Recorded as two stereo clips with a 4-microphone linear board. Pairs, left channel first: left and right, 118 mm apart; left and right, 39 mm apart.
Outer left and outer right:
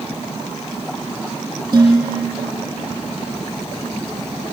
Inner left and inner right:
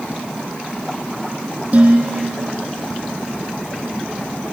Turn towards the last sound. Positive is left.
turn(degrees=-35)  # may be behind; listen again after turning